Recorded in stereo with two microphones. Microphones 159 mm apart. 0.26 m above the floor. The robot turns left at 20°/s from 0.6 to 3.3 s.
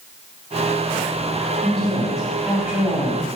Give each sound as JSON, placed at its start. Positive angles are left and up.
{"t": 1.6, "sound": "a woman speaking", "azimuth_deg": 5, "distance_m": 1.1}